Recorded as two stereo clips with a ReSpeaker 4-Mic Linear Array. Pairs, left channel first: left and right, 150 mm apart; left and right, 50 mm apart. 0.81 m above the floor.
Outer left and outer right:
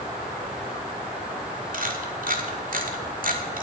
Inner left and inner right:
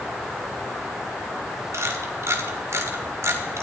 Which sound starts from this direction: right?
A camera shutter, at 1.7 s.